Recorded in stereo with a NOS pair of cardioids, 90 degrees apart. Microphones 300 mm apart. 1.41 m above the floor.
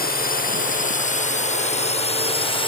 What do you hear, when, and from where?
0.0 s a drone: 30° left; by 2.7 s 15° left